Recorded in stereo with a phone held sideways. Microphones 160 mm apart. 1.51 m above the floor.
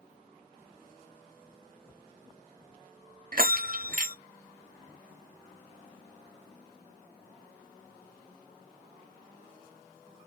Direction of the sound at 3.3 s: 60° right (ahead or behind).